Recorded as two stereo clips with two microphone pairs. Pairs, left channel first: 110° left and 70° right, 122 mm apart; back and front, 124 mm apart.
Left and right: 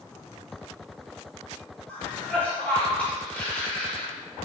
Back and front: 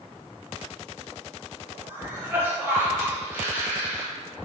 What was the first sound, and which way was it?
A cough, 45° left.